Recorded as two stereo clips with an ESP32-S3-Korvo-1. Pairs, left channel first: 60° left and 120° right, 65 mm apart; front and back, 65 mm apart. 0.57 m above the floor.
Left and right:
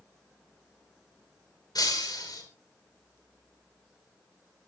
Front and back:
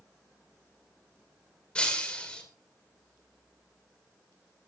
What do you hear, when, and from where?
1.8 s breaking glass: 75° left, 5 m